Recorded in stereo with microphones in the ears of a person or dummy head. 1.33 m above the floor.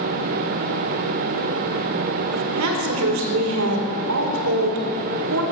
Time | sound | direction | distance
2.3 | a woman speaking | 75° right (ahead or behind) | 1.9 m